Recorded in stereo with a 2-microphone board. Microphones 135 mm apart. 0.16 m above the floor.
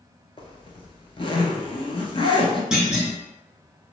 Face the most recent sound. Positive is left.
turn(degrees=-5)  # may be behind; listen again after turning